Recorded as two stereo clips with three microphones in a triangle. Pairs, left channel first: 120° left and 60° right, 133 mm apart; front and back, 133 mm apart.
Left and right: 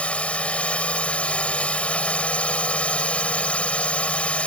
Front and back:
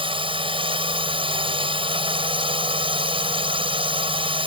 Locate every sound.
0.0 s a drone: 165° right